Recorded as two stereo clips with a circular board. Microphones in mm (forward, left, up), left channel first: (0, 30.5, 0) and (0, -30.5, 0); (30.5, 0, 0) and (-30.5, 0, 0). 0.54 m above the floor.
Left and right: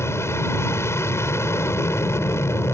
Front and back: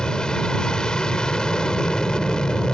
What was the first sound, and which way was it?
An aircraft, 75° left.